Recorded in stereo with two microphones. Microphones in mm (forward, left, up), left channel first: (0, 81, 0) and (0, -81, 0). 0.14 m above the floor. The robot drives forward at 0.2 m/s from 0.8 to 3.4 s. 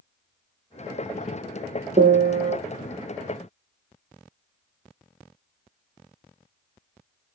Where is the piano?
75° right (ahead or behind), 1.1 m; by 2.6 s 70° right (ahead or behind), 1.2 m.